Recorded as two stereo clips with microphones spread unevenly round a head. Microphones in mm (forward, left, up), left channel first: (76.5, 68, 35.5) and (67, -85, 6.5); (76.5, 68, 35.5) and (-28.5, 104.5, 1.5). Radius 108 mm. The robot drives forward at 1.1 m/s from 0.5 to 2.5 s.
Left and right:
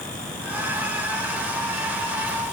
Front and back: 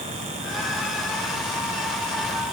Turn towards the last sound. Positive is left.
No sound to turn to.